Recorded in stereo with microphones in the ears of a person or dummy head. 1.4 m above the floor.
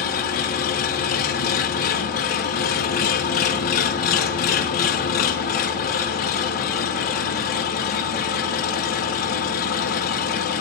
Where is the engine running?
50° left (ahead or behind), 1.4 m.